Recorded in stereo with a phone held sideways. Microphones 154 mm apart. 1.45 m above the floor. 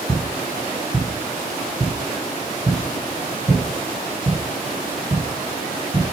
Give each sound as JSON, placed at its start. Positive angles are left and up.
{"t": 0.1, "sound": "footsteps", "side_deg": 20, "distance_m": 1.4}